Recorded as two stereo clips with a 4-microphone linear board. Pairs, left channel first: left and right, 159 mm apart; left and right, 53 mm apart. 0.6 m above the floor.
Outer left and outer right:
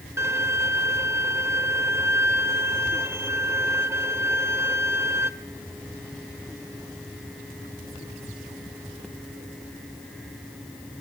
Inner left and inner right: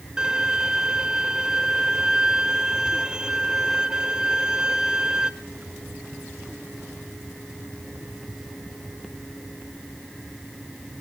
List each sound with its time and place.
0.2 s a violin: 15° right (ahead or behind), 0.8 m